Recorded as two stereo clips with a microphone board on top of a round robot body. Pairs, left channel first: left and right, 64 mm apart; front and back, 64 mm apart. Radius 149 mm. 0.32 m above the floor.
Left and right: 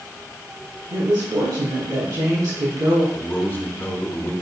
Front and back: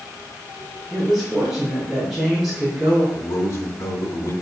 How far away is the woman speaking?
About 3.5 m.